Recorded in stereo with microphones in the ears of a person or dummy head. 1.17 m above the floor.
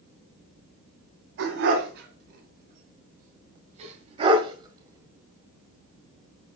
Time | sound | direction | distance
1.4 | a dog barking | 65° right (ahead or behind) | 2.5 m